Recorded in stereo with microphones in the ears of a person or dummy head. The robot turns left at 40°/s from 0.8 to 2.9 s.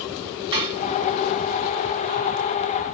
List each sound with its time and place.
0.5 s dishes clattering: 30° right (ahead or behind), 0.8 m